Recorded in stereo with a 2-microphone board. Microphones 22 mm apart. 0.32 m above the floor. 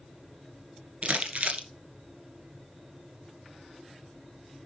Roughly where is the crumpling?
Right.